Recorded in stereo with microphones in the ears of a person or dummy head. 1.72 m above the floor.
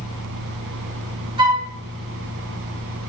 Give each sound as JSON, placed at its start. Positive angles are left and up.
{"t": 1.4, "sound": "a flute", "side_deg": -25, "distance_m": 1.9}